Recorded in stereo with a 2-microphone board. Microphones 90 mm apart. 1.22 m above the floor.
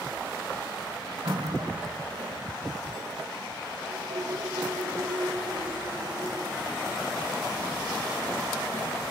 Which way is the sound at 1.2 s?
70° right (ahead or behind).